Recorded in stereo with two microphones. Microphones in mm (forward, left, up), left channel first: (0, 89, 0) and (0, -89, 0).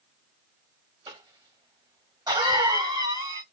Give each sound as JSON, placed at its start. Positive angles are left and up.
{"t": 1.1, "sound": "a cough", "side_deg": -25, "distance_m": 1.3}